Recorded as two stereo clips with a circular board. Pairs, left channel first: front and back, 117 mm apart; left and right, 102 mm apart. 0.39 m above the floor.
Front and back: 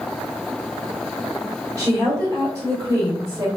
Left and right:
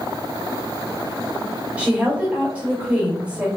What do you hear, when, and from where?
1.8 s a woman speaking: 160° right, 1.4 m